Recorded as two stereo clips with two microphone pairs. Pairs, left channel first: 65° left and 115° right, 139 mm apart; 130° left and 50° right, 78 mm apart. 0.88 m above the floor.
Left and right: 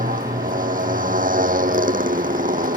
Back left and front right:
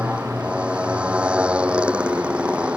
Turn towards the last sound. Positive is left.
turn(degrees=-125)